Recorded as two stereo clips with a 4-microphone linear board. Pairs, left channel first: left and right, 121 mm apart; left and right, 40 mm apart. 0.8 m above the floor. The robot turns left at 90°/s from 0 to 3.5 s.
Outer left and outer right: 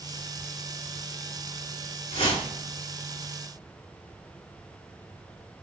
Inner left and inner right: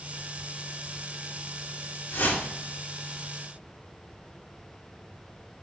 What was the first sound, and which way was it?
A whoosh, 60° left.